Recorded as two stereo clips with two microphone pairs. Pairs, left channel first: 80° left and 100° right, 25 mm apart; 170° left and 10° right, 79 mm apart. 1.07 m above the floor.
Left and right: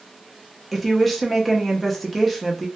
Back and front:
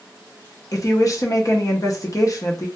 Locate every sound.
0.7 s a woman speaking: 170° left, 0.6 m